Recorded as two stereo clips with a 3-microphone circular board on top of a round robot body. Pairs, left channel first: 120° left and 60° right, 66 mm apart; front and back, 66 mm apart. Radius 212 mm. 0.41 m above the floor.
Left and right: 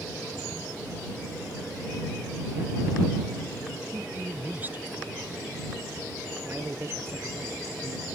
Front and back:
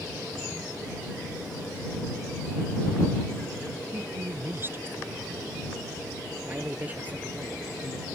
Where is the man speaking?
115° right.